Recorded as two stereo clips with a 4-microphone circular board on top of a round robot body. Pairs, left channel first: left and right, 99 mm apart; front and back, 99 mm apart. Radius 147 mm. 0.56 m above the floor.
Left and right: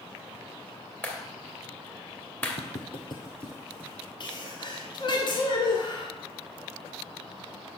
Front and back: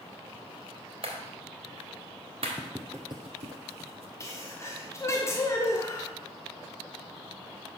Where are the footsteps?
85° left, 1.1 m; by 4.1 s 155° right, 1.2 m.